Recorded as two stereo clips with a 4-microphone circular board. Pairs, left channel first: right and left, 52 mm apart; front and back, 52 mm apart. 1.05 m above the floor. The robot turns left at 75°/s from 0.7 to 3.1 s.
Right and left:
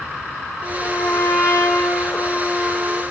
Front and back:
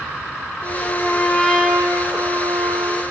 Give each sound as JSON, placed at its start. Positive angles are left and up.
{"t": 0.6, "sound": "a trumpet", "azimuth_deg": -20, "distance_m": 6.0}